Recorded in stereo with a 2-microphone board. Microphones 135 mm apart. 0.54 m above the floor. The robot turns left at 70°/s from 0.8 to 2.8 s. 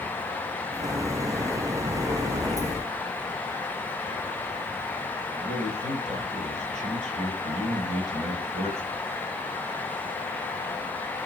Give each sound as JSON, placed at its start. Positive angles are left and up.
{"t": 5.3, "sound": "a man speaking", "side_deg": -55, "distance_m": 2.5}